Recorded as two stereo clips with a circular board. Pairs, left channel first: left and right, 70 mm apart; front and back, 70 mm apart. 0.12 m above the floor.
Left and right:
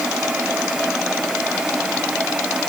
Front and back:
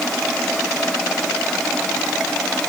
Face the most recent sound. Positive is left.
No sound to turn to.